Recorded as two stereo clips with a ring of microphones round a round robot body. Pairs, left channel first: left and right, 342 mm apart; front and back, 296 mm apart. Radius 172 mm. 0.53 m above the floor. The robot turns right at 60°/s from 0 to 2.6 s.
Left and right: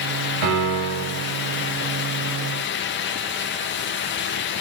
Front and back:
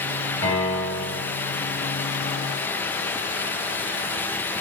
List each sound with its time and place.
0.4 s a piano: 80° right, 3 m; by 1.2 s 30° right, 3 m